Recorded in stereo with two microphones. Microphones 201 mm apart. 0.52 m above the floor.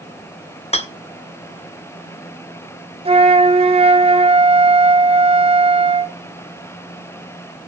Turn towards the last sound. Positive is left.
turn(degrees=-30)  # may be behind; listen again after turning